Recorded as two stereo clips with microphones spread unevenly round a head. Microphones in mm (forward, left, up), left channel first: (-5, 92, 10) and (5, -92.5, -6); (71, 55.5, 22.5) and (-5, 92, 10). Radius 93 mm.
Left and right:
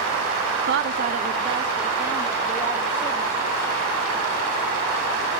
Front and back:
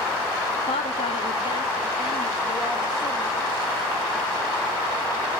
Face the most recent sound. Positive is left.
turn(degrees=5)